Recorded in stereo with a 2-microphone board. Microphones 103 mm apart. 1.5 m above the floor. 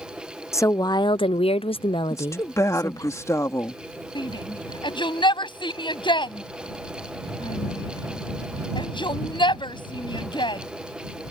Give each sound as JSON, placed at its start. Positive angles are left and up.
{"t": 0.5, "sound": "a woman speaking", "side_deg": 25}
{"t": 2.1, "sound": "a woman speaking", "side_deg": 30}
{"t": 4.2, "sound": "a shout", "side_deg": 50}